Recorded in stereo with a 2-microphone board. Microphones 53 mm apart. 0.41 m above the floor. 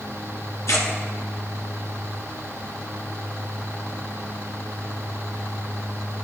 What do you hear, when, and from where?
0.7 s tearing paper: 75° left (ahead or behind), 1.1 m